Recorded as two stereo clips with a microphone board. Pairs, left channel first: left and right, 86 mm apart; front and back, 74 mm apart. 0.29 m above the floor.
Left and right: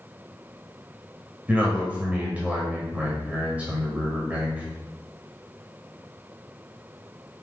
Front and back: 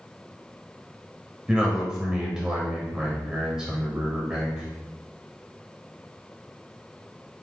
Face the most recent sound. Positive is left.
turn(degrees=-120)